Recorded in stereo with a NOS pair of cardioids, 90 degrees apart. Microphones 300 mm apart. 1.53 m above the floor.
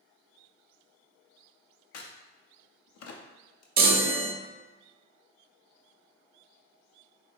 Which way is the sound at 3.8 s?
30° right.